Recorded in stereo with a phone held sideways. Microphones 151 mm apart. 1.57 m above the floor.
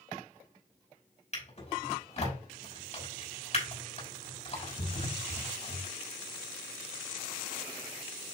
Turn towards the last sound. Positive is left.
turn(degrees=45)  # may be behind; listen again after turning